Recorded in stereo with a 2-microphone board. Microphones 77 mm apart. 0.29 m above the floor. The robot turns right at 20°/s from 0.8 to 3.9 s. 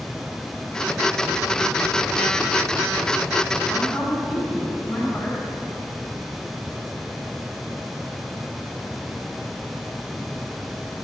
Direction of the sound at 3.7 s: 10° left (ahead or behind).